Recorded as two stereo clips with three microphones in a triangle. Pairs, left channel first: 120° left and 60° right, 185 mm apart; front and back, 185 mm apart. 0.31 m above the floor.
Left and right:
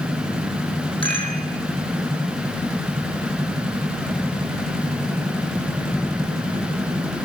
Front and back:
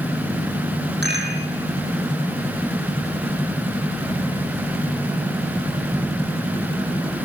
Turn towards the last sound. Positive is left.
turn(degrees=180)